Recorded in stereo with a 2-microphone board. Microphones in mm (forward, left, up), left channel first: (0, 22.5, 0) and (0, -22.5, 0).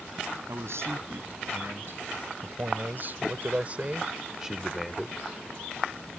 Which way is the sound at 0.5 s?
70° right (ahead or behind).